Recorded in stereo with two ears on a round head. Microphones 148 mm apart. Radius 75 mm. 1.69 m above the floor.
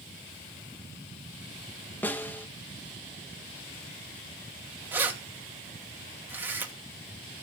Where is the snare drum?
10° left (ahead or behind), 1.3 m.